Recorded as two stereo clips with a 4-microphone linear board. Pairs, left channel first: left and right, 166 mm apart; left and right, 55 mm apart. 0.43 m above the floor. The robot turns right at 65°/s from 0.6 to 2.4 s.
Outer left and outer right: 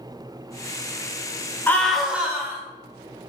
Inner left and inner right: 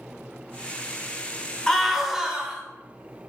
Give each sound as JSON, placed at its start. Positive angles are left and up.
{"t": 1.7, "sound": "a scream", "azimuth_deg": 160, "distance_m": 1.5}